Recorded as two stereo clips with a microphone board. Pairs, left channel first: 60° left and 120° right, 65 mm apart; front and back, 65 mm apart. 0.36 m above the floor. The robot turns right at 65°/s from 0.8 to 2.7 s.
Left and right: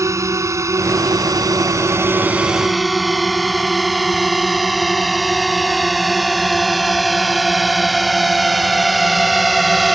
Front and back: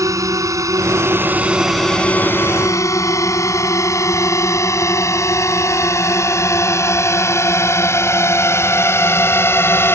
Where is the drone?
155° right; by 9.9 s 30° right.